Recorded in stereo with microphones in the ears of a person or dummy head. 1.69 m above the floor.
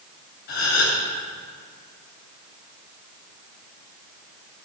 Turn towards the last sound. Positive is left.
turn(degrees=60)  # may be behind; listen again after turning